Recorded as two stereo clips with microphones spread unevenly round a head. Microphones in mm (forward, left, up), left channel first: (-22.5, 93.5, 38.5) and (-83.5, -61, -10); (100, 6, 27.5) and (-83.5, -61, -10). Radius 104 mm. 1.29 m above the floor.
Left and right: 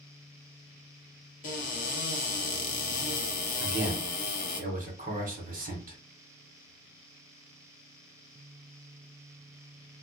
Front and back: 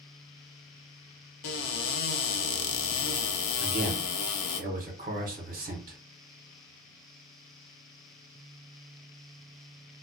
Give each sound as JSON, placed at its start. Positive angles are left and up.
{"t": 1.4, "sound": "a cupboard door", "azimuth_deg": 15, "distance_m": 0.6}
{"t": 3.6, "sound": "a man speaking", "azimuth_deg": -125, "distance_m": 1.3}